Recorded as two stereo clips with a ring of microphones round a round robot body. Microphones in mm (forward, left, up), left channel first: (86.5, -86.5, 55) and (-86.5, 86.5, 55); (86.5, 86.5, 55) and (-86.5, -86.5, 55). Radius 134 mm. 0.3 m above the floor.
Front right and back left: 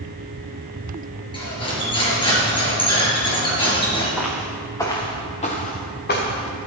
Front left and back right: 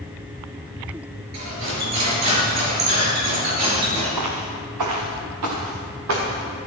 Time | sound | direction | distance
1.3 | cutlery clinking | 115° right | 4.5 m
4.2 | footsteps | 135° right | 2.5 m